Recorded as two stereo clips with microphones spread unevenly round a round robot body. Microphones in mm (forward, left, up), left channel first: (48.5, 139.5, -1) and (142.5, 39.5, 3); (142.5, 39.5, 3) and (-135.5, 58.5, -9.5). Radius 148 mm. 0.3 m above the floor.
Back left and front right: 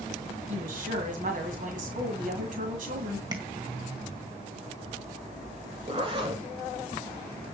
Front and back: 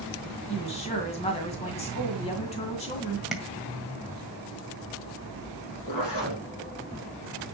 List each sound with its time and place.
0.5 s a woman speaking: 75° right, 1.9 m
3.3 s tapping: 95° right, 1.8 m
5.9 s a zipper: 5° left, 4.5 m